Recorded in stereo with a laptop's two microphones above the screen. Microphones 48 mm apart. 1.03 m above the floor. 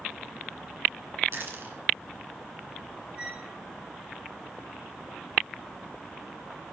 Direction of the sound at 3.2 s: 25° right (ahead or behind).